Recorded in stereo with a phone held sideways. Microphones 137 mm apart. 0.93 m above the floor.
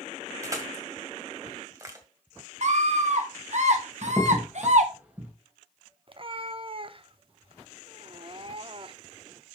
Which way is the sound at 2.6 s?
60° right (ahead or behind).